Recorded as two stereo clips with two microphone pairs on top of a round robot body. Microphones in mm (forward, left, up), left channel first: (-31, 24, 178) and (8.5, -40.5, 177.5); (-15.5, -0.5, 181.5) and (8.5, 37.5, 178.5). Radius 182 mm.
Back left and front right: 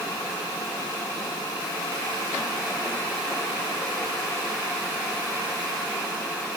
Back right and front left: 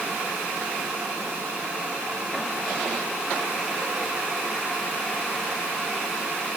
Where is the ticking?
No ticking in this recording.